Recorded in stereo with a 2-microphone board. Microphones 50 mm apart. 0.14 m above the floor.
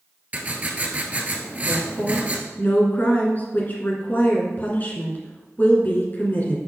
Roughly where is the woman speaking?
Left.